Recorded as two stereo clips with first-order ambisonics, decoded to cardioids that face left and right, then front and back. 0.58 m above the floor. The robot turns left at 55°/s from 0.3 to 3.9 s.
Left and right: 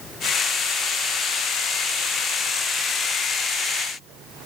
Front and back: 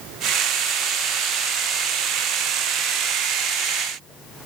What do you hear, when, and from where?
Only background noise.